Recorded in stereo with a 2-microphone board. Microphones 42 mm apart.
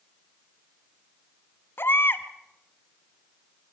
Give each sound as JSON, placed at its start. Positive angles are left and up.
{"t": 1.8, "sound": "a baby crying", "side_deg": 60, "distance_m": 1.5}